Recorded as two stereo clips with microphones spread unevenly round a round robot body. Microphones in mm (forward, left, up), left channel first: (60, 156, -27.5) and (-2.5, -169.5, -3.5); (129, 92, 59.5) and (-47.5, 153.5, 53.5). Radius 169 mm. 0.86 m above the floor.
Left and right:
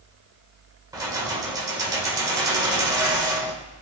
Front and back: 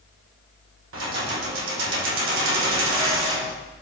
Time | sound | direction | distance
0.9 | keys jangling | straight behind | 1.6 m